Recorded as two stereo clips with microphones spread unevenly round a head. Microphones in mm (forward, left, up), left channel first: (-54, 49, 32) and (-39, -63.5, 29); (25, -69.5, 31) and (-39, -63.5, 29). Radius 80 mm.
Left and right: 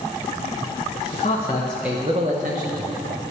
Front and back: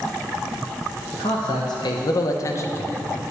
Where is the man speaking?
50° left, 1.5 m; by 3.3 s 60° right, 2.5 m.